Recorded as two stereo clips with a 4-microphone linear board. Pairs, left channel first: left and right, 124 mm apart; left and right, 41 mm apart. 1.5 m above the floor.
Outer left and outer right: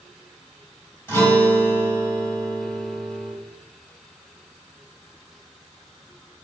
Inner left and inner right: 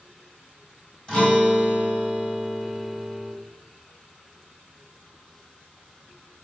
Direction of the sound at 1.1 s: 20° left (ahead or behind).